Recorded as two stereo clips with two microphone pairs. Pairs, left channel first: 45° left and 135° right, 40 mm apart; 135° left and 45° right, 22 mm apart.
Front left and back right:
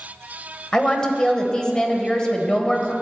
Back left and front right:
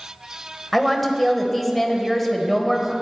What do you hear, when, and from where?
0.7 s a woman speaking: 65° left, 1.0 m